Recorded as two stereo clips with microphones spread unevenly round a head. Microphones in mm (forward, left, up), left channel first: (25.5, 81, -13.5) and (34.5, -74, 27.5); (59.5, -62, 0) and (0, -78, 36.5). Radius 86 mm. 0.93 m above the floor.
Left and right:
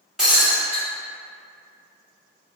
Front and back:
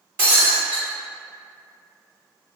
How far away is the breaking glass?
About 1.1 m.